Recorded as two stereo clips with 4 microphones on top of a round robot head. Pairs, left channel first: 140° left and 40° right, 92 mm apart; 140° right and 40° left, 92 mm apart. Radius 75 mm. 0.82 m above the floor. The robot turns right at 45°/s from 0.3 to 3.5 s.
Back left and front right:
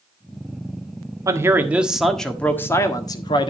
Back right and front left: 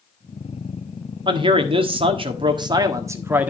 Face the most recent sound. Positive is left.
turn(degrees=115)